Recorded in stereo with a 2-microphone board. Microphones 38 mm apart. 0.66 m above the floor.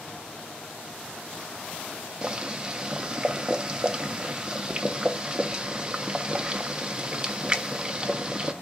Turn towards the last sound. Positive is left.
turn(degrees=-20)  # may be behind; listen again after turning